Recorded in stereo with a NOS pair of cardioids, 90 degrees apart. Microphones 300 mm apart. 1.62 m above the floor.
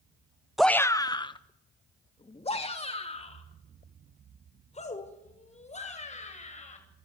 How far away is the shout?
About 0.6 m.